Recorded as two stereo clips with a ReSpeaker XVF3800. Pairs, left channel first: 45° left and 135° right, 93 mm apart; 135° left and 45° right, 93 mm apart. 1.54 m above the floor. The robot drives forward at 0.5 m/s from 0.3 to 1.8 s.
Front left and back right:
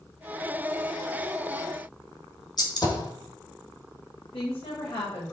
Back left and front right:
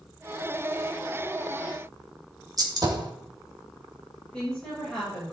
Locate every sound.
2.6 s a gunshot: straight ahead, 1.9 m
4.3 s a woman speaking: 55° left, 5.5 m